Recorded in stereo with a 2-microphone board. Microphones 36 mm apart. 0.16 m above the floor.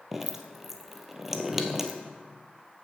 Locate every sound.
0.1 s dripping: 10° right (ahead or behind), 0.8 m